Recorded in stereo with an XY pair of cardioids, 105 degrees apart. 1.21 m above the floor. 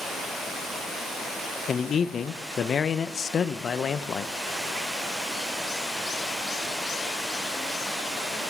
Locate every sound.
1.7 s a man speaking: 45° left, 0.5 m